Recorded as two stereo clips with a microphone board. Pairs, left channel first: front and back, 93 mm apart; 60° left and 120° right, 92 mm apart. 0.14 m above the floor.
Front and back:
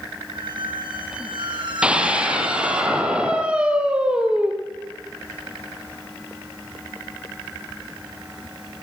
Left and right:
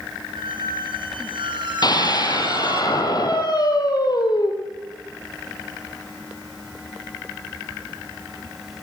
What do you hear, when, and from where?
0.3 s a squeak: 150° right, 5 m
1.8 s a scream: 100° left, 3.5 m